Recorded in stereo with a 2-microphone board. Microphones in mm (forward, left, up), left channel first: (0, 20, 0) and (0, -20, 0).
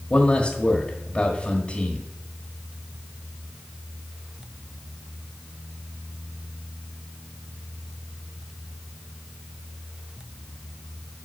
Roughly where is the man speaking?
Left.